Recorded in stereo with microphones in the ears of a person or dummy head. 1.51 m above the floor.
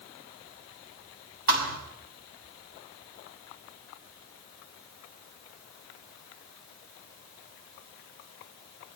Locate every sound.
1.5 s a thud: 60° right (ahead or behind), 6 m